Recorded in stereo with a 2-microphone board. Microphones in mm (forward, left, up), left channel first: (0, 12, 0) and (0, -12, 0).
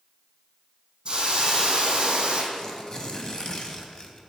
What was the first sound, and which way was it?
A hiss, 40° right (ahead or behind).